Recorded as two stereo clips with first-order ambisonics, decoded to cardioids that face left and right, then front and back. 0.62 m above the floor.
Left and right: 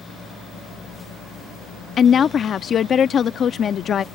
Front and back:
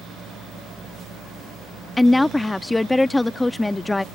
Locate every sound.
2.0 s a woman speaking: 70° left